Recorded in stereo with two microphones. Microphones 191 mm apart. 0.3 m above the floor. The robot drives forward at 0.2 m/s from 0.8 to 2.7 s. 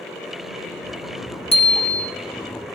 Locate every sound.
1.5 s a bicycle bell: 30° left (ahead or behind), 2 m